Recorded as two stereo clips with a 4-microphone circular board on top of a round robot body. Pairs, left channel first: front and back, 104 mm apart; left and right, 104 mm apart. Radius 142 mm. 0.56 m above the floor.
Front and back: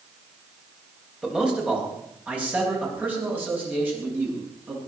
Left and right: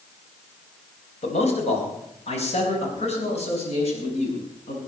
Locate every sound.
1.2 s a man speaking: 95° left, 4 m; by 4.8 s 110° left, 7.5 m